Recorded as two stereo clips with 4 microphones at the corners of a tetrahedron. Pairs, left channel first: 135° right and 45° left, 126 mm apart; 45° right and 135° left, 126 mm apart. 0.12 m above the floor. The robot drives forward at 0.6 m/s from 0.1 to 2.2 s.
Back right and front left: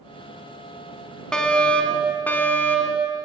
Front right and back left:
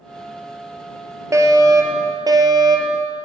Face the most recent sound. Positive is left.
turn(degrees=160)